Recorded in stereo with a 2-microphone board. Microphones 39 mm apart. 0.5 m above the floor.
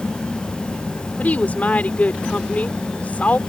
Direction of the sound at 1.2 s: 45° left (ahead or behind).